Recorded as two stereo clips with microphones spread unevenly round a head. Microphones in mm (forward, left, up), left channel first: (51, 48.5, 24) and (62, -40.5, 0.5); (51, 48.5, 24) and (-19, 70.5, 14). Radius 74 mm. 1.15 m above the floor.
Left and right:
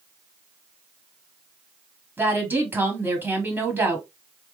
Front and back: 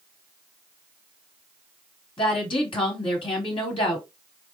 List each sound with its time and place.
2.2 s a woman speaking: 20° right, 1.3 m